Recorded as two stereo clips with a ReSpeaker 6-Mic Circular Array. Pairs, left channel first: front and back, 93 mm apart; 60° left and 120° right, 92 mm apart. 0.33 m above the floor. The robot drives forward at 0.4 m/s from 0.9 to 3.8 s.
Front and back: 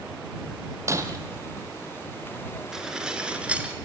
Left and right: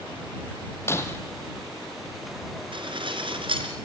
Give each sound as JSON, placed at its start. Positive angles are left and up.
{"t": 0.9, "sound": "breaking glass", "azimuth_deg": 120, "distance_m": 2.0}
{"t": 2.7, "sound": "dishes clattering", "azimuth_deg": -95, "distance_m": 3.0}